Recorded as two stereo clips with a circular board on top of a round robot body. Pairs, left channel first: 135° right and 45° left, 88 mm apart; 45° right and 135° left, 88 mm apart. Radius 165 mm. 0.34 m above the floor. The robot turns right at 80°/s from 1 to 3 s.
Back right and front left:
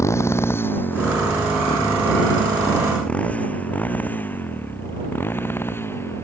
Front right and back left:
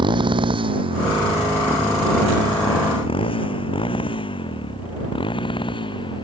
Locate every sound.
0.0 s a motorcycle: 165° left; by 6.2 s 70° right